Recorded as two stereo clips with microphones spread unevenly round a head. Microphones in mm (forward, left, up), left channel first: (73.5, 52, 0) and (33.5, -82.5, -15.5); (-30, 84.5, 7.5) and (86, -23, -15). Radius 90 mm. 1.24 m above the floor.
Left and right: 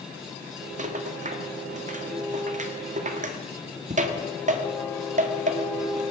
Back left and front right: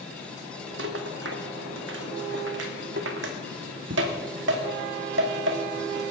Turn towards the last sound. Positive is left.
turn(degrees=-70)